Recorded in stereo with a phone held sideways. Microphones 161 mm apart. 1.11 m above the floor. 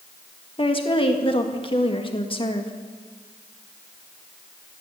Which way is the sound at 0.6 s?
35° left (ahead or behind).